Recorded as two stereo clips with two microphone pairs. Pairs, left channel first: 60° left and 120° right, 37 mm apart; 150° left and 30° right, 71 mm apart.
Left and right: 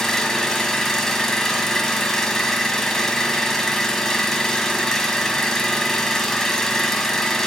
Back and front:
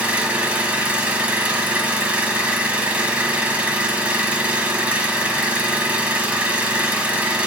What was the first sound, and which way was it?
An engine running, 5° left.